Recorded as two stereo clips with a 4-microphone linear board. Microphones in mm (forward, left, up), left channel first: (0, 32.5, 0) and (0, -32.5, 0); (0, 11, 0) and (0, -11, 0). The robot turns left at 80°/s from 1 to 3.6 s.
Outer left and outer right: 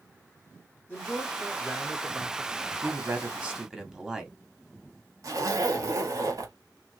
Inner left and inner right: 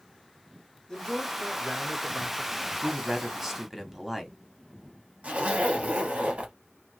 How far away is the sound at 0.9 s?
About 0.9 m.